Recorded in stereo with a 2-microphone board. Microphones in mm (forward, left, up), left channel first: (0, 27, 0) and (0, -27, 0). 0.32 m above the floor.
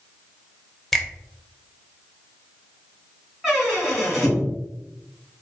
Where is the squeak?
5° right (ahead or behind), 2 m.